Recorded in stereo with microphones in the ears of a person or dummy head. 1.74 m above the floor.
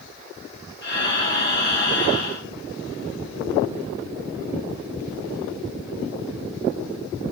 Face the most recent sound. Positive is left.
turn(degrees=50)  # may be behind; listen again after turning